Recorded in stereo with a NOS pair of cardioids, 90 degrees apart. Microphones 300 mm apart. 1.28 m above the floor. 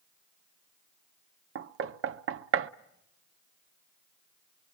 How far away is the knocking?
About 0.8 m.